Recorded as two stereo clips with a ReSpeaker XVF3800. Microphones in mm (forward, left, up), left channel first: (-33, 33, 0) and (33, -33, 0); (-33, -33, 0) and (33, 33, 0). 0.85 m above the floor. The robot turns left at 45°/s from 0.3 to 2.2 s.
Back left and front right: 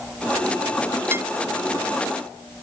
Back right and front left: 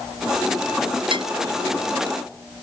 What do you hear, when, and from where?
1.1 s dishes clattering: 20° left; by 1.3 s 15° left